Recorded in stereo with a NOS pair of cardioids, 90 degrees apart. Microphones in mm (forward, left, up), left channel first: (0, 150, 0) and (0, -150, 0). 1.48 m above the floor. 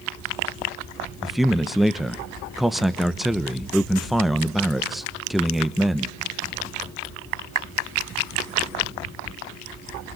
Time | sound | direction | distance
1.2 | a man speaking | straight ahead | 1.0 m